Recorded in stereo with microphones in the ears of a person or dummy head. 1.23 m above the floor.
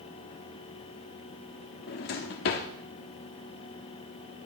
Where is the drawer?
40° left (ahead or behind), 0.8 m.